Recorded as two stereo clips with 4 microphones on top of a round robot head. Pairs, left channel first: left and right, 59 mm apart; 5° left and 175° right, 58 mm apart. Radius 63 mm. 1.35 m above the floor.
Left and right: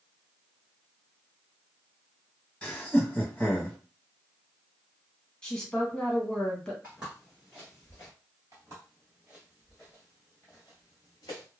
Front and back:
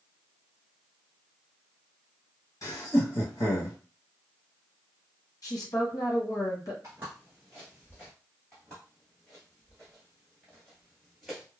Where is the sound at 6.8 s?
150° right, 1.3 m; by 8.1 s 45° left, 1.7 m.